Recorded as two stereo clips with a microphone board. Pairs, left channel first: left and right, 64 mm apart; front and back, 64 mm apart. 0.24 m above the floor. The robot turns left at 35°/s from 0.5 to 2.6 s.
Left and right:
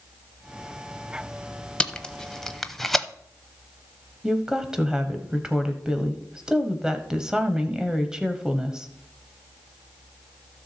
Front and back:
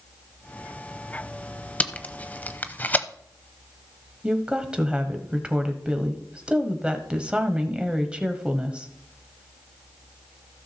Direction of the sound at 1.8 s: 35° left.